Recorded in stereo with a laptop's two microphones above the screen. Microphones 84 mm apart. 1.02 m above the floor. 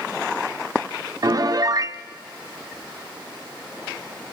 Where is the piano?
45° right (ahead or behind), 0.6 m.